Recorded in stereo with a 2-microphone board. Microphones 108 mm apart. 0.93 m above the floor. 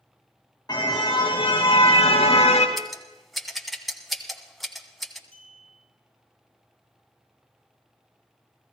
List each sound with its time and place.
0.7 s a car horn: 40° left (ahead or behind), 3 m; by 2.7 s 80° left, 2.5 m
2.8 s scissors: centre (ahead or behind), 1.4 m
5.3 s a clink: 10° left (ahead or behind), 7.5 m